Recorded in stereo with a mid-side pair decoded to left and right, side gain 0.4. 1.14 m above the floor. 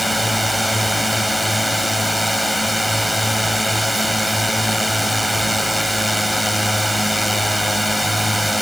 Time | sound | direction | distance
0.0 | a drone | 5° right | ?